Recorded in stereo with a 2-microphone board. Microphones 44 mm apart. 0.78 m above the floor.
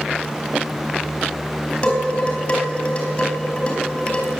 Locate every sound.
1.8 s dishes clattering: 30° left (ahead or behind), 4.5 m